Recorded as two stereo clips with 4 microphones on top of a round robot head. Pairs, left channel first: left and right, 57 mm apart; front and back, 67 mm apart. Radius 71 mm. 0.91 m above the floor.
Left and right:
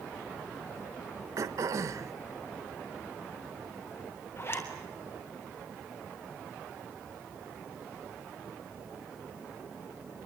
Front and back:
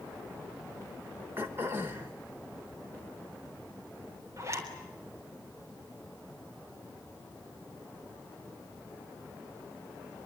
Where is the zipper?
135° left, 3.5 m.